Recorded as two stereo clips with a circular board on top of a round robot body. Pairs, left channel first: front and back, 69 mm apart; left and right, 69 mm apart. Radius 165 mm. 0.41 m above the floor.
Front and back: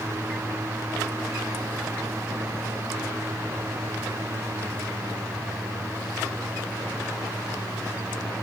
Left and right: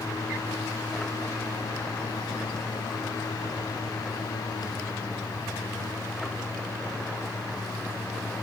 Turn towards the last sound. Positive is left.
No sound to turn to.